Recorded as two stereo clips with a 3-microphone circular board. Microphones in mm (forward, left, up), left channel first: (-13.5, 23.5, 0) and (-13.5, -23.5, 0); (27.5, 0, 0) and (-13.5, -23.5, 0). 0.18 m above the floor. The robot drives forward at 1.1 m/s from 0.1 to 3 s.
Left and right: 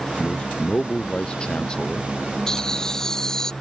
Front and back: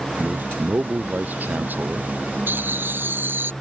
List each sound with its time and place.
0.2 s a man speaking: 160° left; by 2.1 s 165° left
2.5 s laughter: 170° left